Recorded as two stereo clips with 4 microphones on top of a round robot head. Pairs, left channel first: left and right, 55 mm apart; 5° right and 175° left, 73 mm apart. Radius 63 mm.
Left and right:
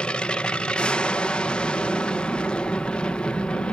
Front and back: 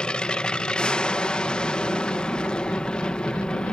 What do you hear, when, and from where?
0.0 s an aircraft: 55° left